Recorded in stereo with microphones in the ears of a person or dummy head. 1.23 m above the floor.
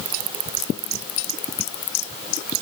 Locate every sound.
Only background noise.